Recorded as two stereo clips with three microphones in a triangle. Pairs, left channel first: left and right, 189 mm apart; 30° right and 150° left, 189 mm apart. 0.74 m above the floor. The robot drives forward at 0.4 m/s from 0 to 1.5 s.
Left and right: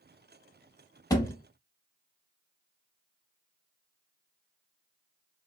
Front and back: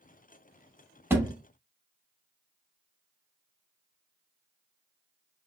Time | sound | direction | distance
1.1 | a thud | 100° left | 0.6 m